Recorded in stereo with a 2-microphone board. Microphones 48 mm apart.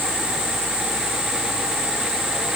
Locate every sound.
Only background noise.